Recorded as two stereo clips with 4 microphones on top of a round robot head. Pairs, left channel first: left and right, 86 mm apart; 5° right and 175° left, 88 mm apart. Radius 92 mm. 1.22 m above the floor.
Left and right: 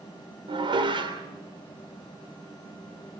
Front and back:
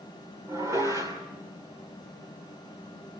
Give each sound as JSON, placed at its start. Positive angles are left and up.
{"t": 0.5, "sound": "dishes clattering", "azimuth_deg": -120, "distance_m": 3.0}